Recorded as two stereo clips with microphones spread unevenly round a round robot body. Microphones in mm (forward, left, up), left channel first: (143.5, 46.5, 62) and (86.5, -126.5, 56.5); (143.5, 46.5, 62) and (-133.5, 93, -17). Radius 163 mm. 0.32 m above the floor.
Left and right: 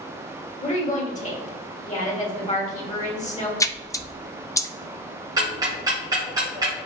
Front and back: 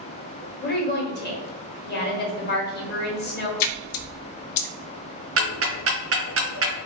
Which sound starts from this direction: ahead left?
A woman speaking, at 0.6 s.